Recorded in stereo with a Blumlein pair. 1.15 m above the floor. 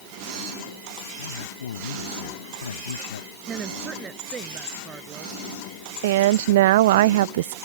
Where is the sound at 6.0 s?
55° right.